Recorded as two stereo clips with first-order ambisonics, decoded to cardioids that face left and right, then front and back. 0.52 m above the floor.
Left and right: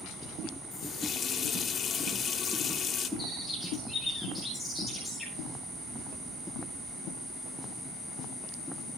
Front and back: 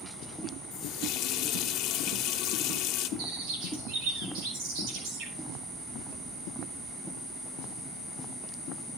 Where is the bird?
175° left, 6.5 m.